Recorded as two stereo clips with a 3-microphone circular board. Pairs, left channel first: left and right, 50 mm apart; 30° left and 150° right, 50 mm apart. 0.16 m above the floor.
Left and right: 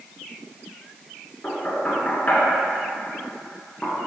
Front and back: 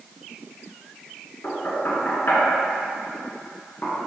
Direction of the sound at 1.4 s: 45° left.